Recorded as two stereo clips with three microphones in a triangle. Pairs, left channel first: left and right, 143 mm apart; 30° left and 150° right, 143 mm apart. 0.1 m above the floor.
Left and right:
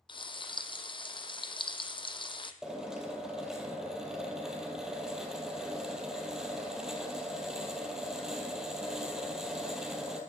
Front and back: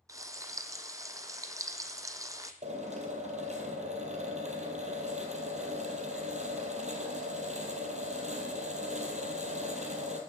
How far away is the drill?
About 2.0 m.